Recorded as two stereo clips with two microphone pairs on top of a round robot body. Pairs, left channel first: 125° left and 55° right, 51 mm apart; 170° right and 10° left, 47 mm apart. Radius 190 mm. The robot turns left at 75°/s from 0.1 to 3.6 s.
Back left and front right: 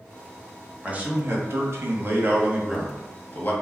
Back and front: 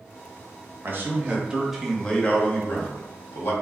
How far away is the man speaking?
About 1.1 m.